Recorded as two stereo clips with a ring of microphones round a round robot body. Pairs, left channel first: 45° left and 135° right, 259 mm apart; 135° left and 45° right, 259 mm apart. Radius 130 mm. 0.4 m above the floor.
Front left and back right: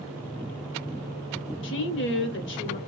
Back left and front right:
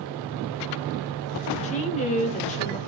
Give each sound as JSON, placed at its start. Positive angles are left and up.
{"t": 1.6, "sound": "a woman speaking", "azimuth_deg": 75, "distance_m": 1.3}